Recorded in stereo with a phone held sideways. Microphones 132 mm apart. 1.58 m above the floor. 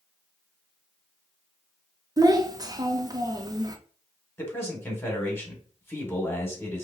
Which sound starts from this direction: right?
A child speaking, at 2.2 s.